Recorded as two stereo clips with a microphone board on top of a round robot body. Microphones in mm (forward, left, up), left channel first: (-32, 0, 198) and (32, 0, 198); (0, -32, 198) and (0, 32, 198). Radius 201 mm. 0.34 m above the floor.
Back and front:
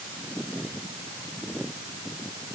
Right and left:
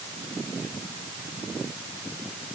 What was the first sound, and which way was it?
Only background noise.